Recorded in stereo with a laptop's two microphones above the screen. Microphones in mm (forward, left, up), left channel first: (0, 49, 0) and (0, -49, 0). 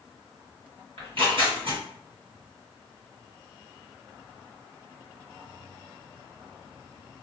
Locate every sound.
1.0 s tearing paper: 65° right (ahead or behind), 1.9 m